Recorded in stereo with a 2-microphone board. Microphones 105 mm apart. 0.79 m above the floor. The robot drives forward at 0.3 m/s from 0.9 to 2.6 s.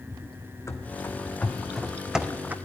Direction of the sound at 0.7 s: 30° left (ahead or behind).